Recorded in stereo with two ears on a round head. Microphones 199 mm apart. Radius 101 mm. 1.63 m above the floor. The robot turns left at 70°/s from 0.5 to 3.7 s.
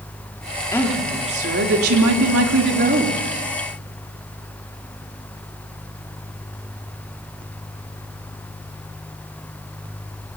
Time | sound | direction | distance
0.7 | a woman speaking | 15° left | 3 m